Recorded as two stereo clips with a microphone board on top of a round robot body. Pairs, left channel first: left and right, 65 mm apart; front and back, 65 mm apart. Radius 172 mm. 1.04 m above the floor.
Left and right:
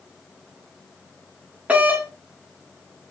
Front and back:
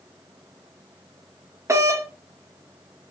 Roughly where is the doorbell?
Behind right.